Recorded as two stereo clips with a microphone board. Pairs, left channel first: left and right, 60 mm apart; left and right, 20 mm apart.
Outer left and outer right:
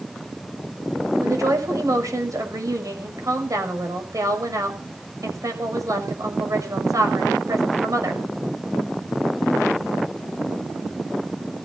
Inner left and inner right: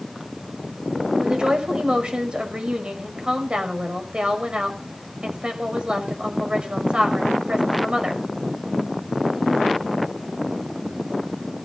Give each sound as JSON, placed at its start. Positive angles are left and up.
{"t": 1.2, "sound": "a woman speaking", "side_deg": -60, "distance_m": 5.5}